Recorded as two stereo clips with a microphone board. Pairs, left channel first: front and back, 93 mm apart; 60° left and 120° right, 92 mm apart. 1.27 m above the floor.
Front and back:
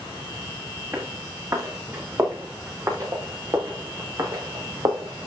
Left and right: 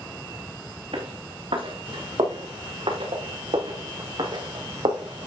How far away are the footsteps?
About 6 m.